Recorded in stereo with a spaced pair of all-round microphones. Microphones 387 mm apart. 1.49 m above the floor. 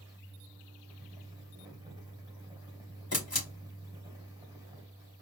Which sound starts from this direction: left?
A camera shutter, at 3.1 s.